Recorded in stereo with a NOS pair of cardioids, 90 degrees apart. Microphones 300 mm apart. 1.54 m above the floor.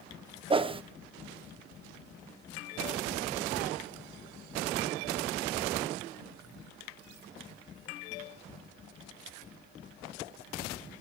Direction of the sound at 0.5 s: 20° right.